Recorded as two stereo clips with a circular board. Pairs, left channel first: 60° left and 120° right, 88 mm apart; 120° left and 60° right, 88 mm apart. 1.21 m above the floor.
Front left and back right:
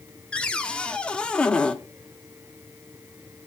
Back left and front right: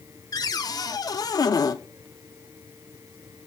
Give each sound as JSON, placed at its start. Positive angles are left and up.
{"t": 0.3, "sound": "a cupboard door", "azimuth_deg": 135, "distance_m": 0.8}